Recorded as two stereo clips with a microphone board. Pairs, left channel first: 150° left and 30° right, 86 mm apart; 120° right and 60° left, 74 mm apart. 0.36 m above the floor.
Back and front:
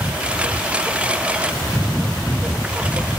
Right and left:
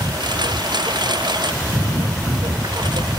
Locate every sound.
0.0 s a lawn mower: 45° left